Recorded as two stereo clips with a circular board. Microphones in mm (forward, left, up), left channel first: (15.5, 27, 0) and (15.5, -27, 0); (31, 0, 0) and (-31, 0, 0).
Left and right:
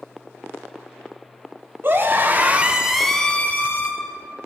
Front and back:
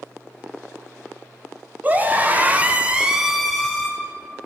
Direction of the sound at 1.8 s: 125° right.